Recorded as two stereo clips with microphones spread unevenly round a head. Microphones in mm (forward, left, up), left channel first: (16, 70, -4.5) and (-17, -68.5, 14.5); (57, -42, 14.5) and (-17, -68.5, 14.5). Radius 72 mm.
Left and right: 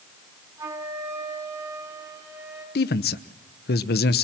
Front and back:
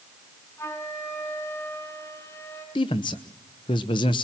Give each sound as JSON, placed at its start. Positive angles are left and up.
{"t": 0.6, "sound": "a flute", "azimuth_deg": -35, "distance_m": 4.5}
{"t": 2.8, "sound": "a man speaking", "azimuth_deg": 65, "distance_m": 1.0}